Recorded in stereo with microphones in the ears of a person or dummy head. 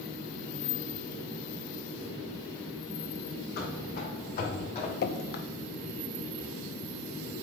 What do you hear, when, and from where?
3.6 s running footsteps: 55° left (ahead or behind), 3.5 m; by 4.9 s 30° left (ahead or behind), 3 m
5.0 s dripping: 50° left (ahead or behind), 0.6 m